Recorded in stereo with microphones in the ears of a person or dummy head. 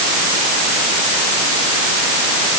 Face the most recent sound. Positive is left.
No sound to turn to.